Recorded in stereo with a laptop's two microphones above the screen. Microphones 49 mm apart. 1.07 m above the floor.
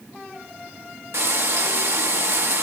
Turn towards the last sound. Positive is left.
turn(degrees=-65)  # may be behind; listen again after turning